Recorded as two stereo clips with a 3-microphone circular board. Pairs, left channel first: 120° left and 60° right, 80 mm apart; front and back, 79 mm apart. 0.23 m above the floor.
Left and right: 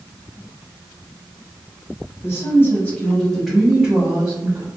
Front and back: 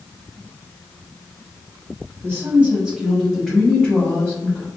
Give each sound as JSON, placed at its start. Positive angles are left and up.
{"t": 2.2, "sound": "a woman speaking", "azimuth_deg": 140, "distance_m": 1.2}